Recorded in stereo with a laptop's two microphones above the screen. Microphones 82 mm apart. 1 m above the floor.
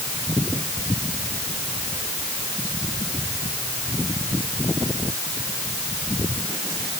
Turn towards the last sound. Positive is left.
No sound to turn to.